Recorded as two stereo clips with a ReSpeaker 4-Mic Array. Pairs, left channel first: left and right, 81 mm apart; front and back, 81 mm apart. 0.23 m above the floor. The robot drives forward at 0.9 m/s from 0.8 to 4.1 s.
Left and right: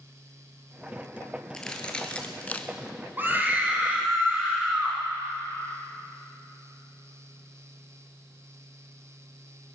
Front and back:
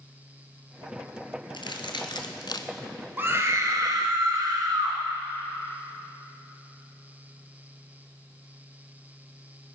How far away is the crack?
About 1.7 m.